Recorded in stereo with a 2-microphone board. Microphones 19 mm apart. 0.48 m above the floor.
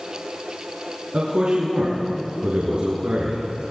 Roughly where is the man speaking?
Right.